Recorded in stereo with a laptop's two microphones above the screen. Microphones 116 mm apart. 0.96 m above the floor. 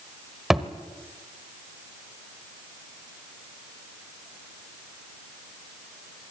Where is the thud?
Centre (ahead or behind), 1.1 m.